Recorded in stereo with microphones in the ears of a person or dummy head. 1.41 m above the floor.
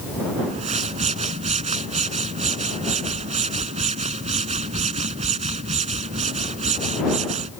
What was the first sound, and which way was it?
A whoosh, 35° right (ahead or behind).